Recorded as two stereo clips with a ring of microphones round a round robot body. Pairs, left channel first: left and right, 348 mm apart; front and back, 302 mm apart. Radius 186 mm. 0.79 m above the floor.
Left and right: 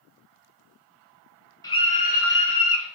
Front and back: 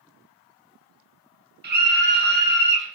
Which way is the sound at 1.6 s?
160° left.